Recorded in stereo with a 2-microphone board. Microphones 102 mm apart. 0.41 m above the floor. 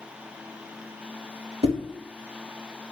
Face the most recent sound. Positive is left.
turn(degrees=-65)  # may be behind; listen again after turning